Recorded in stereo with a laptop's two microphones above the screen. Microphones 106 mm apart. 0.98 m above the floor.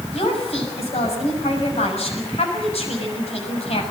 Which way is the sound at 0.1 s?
75° left (ahead or behind).